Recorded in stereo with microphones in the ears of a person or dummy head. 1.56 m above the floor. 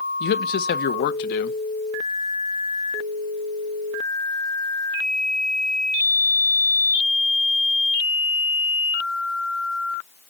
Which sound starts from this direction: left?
A man speaking, at 0.2 s.